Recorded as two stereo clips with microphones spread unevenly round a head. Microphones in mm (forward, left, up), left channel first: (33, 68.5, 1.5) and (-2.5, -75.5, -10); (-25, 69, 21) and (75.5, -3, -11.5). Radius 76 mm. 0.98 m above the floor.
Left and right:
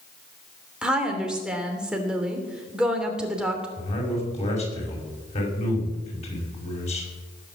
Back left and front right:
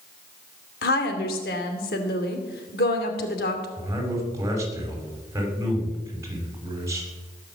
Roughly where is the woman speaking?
Behind.